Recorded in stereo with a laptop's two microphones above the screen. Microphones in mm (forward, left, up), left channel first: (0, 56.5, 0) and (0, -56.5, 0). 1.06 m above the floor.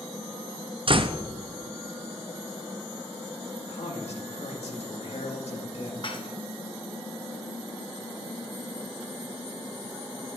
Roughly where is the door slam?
Right.